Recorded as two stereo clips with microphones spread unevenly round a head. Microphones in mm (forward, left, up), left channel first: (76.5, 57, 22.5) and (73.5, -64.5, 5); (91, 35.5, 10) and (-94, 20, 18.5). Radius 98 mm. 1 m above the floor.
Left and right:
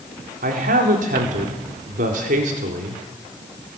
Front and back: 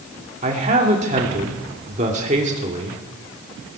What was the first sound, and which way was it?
A man speaking, 120° right.